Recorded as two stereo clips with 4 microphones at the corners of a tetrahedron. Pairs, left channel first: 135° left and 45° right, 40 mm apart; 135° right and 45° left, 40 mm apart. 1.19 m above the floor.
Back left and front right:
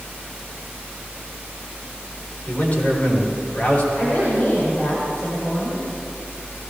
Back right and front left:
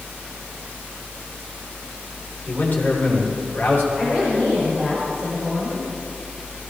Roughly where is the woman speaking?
Behind left.